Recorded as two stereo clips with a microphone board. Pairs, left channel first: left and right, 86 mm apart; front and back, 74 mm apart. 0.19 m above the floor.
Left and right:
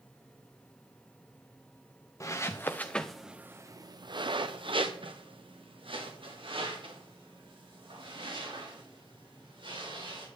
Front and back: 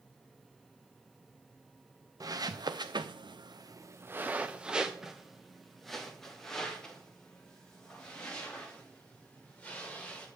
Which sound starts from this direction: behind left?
Footsteps, at 2.2 s.